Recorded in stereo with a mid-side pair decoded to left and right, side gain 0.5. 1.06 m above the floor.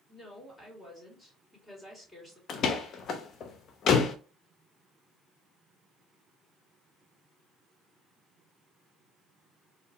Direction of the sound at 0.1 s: 20° left.